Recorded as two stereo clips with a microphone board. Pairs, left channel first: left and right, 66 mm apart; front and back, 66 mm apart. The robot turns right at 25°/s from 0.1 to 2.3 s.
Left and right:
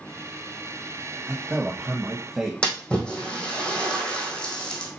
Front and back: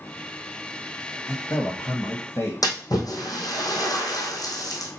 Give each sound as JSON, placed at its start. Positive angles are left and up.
{"t": 1.3, "sound": "a man speaking", "azimuth_deg": -35, "distance_m": 1.2}
{"t": 2.6, "sound": "a splash", "azimuth_deg": 15, "distance_m": 2.5}